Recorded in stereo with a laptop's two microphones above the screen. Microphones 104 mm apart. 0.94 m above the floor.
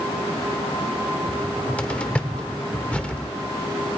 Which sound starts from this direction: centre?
A cupboard door, at 1.3 s.